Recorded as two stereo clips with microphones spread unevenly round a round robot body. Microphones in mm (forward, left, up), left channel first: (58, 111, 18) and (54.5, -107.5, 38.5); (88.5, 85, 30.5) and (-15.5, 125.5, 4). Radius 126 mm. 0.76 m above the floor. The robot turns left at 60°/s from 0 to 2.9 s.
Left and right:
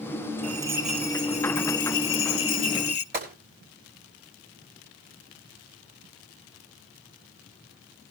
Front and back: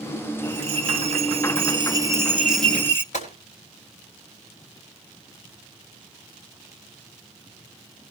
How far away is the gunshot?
About 5.5 m.